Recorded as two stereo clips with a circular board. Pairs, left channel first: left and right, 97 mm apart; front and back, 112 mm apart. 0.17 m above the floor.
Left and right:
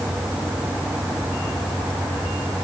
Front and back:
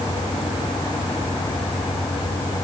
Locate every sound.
Only background noise.